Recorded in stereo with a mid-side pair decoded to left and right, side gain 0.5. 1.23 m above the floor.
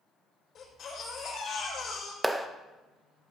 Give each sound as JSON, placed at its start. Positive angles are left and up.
{"t": 0.6, "sound": "a baby crying", "azimuth_deg": 55, "distance_m": 4.0}
{"t": 2.2, "sound": "a clap", "azimuth_deg": -10, "distance_m": 0.7}